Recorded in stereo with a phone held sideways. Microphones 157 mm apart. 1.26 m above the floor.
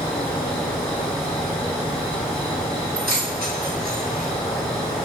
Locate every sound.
0.0 s an insect: 5° left (ahead or behind), 1.0 m
3.0 s keys jangling: 70° right (ahead or behind), 1.0 m